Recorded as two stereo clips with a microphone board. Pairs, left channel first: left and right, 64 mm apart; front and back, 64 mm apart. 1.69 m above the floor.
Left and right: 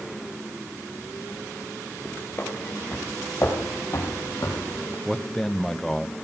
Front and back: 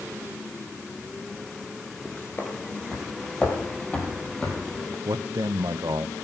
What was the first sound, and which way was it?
Footsteps, 45° left.